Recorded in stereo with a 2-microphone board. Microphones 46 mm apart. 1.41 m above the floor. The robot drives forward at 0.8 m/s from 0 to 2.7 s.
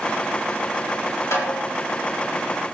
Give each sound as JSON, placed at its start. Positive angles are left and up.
{"t": 1.3, "sound": "a snare drum", "side_deg": 80, "distance_m": 3.0}